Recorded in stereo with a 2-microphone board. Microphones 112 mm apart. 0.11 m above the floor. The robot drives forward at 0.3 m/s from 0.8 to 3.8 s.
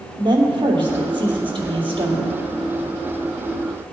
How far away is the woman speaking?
About 2.5 m.